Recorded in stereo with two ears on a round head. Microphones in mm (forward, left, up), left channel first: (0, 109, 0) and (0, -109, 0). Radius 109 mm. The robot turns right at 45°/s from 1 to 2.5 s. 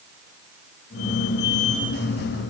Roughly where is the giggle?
No giggle in this recording.